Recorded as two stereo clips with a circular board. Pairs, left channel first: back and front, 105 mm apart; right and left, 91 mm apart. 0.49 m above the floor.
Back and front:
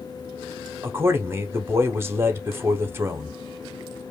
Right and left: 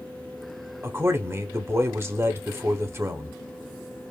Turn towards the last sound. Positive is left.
turn(degrees=50)